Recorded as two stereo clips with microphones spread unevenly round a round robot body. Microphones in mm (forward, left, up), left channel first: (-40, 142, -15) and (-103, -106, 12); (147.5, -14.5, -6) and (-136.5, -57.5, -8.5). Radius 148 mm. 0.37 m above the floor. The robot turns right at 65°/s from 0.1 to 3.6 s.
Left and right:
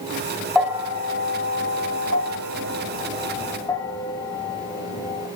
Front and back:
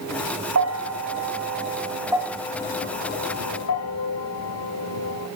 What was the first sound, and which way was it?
A bell, 165° left.